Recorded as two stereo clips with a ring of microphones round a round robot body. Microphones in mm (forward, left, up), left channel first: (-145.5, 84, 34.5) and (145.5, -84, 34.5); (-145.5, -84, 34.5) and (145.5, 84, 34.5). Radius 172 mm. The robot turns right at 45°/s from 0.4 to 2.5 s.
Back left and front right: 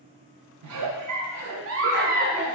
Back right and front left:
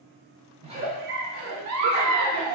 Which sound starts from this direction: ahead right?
A giggle, at 0.6 s.